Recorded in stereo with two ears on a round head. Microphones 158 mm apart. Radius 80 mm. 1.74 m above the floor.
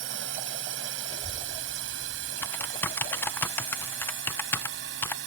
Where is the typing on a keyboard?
10° left (ahead or behind).